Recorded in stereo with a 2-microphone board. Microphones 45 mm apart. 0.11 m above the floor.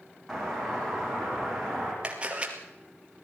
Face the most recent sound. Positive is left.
turn(degrees=-25)  # may be behind; listen again after turning